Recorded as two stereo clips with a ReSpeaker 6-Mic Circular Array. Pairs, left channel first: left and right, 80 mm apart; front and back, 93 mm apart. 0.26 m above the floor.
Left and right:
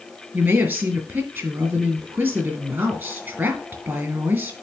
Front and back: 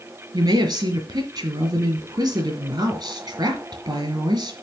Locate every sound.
0.3 s a woman speaking: 145° right, 2 m